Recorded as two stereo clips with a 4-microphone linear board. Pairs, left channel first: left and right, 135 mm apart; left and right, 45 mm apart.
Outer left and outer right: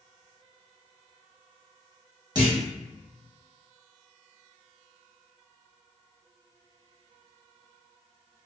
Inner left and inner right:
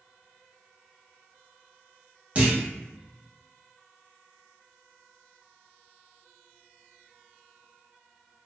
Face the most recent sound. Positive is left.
turn(degrees=-30)  # may be behind; listen again after turning